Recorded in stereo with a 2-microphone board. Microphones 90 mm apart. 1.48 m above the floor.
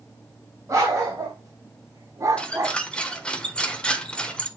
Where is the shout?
No shout in this recording.